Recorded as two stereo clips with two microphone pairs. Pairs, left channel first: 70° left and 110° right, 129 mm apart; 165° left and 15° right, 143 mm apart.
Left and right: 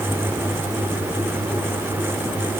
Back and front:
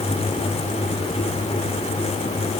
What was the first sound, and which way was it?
Only background noise.